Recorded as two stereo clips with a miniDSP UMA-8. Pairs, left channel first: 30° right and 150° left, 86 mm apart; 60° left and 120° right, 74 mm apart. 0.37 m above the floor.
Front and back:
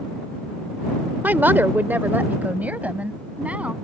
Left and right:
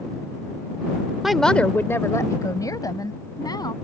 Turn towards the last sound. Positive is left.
turn(degrees=75)